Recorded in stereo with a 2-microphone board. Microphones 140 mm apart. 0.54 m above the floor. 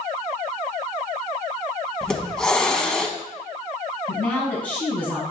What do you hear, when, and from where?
2.0 s a hiss: 5° left (ahead or behind), 0.7 m
4.1 s a woman speaking: 10° left (ahead or behind), 4 m